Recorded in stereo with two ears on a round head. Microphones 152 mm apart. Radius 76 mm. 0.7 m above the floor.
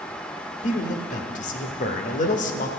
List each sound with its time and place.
0.6 s a man speaking: 45° left (ahead or behind), 0.9 m